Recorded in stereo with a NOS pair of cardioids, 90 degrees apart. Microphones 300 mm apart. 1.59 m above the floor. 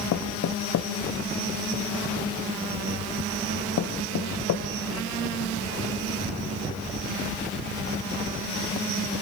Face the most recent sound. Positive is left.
turn(degrees=60)